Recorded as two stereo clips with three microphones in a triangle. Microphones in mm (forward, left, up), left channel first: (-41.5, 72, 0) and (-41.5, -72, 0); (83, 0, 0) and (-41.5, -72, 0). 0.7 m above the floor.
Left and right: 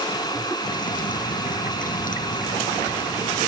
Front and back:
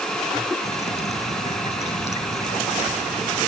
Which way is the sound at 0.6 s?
70° left.